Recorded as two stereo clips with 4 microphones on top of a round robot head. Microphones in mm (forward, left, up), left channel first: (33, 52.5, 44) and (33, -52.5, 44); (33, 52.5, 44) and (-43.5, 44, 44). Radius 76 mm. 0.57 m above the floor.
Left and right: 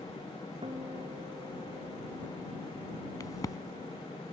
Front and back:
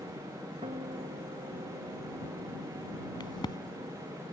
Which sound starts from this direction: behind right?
A guitar, at 0.6 s.